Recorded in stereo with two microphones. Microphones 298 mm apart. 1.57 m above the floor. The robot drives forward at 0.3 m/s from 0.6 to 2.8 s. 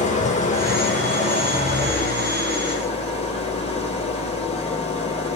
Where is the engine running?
25° left (ahead or behind), 4 m; by 5.4 s 20° left (ahead or behind), 4.5 m.